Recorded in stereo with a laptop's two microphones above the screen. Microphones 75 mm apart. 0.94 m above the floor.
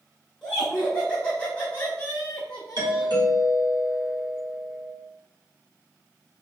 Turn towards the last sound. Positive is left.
turn(degrees=-70)  # may be behind; listen again after turning